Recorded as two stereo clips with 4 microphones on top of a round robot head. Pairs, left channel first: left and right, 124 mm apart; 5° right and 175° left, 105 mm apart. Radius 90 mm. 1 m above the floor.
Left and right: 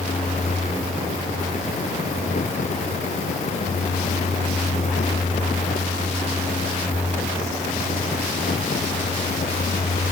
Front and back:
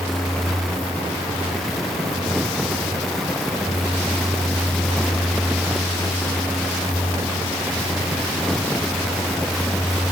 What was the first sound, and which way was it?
Only background noise.